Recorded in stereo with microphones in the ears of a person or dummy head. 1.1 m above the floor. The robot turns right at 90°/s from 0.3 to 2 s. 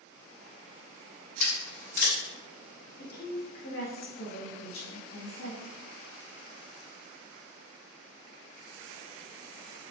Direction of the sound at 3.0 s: 70° left (ahead or behind).